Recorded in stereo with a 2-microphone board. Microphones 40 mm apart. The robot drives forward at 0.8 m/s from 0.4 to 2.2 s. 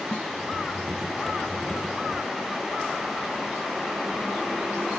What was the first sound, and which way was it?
A snare drum, 35° left (ahead or behind).